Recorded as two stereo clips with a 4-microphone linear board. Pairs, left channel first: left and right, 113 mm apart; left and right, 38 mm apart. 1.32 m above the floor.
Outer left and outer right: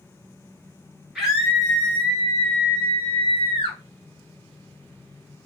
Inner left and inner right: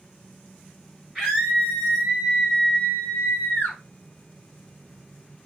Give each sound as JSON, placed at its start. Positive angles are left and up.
{"t": 1.1, "sound": "a scream", "side_deg": -5, "distance_m": 2.0}